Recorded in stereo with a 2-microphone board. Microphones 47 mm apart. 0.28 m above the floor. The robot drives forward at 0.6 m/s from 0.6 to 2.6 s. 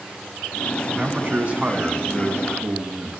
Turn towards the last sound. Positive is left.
turn(degrees=-20)  # may be behind; listen again after turning